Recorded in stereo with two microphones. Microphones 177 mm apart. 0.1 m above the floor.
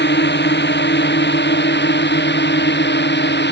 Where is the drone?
80° left.